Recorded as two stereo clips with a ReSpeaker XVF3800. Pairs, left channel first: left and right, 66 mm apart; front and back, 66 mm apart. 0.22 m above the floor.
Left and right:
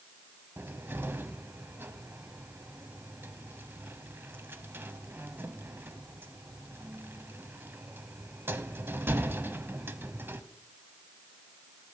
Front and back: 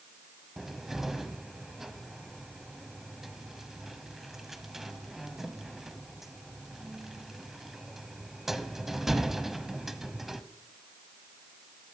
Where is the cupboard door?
100° right, 1.0 m.